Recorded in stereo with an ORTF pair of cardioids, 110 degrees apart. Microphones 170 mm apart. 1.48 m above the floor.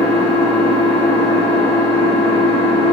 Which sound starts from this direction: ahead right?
An engine running, at 0.0 s.